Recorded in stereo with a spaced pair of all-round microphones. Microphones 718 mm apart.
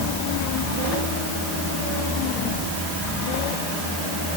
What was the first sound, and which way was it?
Only background noise.